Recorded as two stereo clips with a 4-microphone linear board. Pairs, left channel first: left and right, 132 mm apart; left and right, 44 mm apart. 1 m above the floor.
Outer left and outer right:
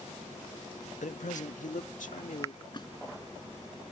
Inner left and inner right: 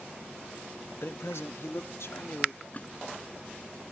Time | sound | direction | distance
1.0 | a man speaking | 65° left (ahead or behind) | ?
2.7 | a splash | 35° left (ahead or behind) | ?